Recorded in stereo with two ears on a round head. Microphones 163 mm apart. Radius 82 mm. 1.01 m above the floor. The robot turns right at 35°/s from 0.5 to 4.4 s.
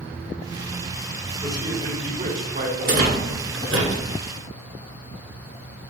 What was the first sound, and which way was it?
A man speaking, 160° right.